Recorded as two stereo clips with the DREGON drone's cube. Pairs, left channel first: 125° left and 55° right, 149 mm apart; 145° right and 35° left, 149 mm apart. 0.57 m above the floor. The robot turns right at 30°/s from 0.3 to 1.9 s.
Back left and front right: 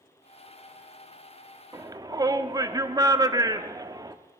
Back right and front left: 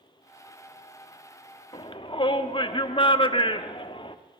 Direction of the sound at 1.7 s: 115° right.